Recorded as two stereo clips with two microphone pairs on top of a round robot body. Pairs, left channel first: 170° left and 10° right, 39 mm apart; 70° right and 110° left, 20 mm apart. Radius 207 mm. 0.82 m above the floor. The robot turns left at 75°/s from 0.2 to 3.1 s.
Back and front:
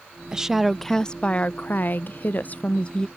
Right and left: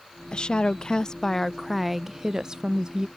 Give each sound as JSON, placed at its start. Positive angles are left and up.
{"t": 0.3, "sound": "a woman speaking", "azimuth_deg": -55}